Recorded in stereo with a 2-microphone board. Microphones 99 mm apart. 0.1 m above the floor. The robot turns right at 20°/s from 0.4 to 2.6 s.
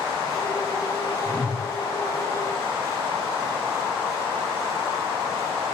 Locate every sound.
1.2 s a whoosh: 10° right (ahead or behind), 7 m; by 1.7 s 20° right (ahead or behind), 7 m